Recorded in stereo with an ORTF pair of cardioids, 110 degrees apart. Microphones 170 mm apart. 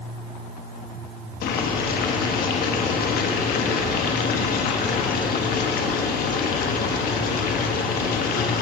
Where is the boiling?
65° left, 1.2 m.